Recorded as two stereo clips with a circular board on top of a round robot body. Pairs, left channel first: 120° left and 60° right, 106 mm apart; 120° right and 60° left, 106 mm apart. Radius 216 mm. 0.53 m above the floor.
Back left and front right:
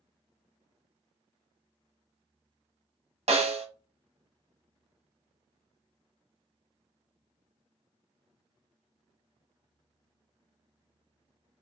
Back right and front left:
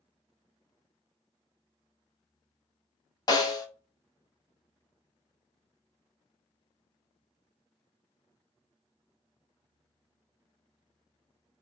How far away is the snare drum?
About 1.0 m.